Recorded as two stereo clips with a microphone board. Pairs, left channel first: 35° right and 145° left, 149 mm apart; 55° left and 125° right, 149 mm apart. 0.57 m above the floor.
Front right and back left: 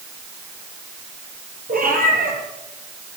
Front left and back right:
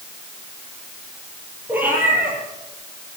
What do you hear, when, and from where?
1.7 s a cat meowing: 160° left, 7 m